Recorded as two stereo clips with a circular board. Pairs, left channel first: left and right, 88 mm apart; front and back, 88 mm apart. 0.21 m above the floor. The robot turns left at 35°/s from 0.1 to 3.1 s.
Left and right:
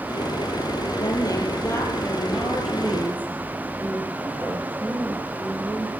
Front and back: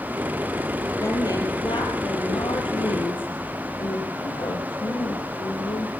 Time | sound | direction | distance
1.0 | a woman speaking | 55° left | 5 m